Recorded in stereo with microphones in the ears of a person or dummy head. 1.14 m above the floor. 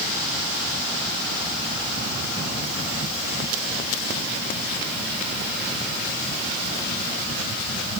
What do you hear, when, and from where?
Only background noise.